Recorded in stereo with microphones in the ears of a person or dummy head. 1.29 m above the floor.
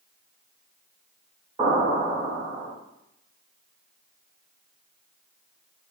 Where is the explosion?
30° right (ahead or behind), 1.5 m.